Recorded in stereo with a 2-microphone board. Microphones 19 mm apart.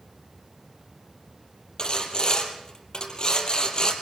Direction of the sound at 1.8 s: 40° left (ahead or behind).